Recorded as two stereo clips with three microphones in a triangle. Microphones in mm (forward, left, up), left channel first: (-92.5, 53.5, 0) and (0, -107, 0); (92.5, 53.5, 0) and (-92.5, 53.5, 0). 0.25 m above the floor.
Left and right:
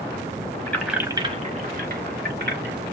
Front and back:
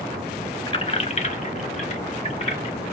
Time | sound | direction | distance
0.7 | keys jangling | 50° left | 0.9 m